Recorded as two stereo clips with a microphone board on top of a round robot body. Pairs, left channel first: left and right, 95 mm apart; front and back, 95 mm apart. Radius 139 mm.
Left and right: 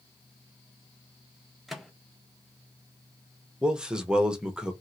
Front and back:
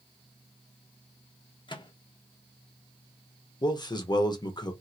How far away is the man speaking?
About 1.0 m.